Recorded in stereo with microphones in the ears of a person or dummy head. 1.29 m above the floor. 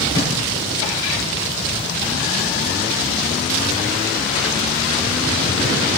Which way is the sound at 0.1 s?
25° left (ahead or behind).